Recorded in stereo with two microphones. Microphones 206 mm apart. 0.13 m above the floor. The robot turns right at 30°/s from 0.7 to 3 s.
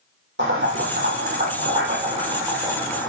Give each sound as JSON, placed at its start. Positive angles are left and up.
{"t": 0.4, "sound": "boiling", "side_deg": -65, "distance_m": 6.5}